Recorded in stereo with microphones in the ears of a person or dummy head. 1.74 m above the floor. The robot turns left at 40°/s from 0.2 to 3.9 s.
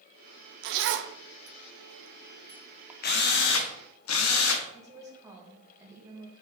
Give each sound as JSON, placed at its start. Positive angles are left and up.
{"t": 0.6, "sound": "a zipper", "side_deg": -60, "distance_m": 0.6}
{"t": 3.0, "sound": "a drill", "azimuth_deg": 135, "distance_m": 1.1}
{"t": 4.7, "sound": "a woman speaking", "side_deg": -20, "distance_m": 2.5}